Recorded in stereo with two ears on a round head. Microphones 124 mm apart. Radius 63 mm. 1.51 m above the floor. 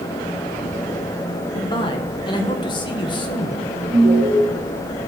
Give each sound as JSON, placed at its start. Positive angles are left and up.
{"t": 1.6, "sound": "a man speaking", "side_deg": 35, "distance_m": 1.5}
{"t": 3.9, "sound": "an alarm", "side_deg": -50, "distance_m": 2.5}